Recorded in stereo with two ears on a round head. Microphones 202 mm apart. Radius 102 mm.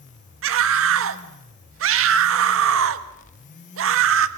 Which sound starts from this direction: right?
A scream, at 0.4 s.